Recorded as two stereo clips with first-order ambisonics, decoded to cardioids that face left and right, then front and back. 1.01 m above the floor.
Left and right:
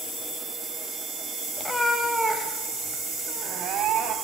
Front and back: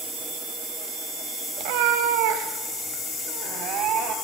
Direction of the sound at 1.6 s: 170° left.